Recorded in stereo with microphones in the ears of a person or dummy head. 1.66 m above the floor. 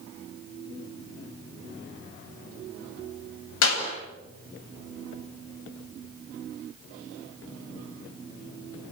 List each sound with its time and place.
3.6 s a clap: 80° left, 8 m